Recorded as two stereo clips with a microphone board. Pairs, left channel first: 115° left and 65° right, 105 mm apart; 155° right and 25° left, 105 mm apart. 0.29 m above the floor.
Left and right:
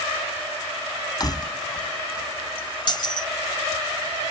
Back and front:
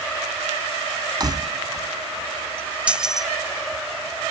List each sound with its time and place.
1.2 s keys jangling: 70° left; by 3.3 s 115° left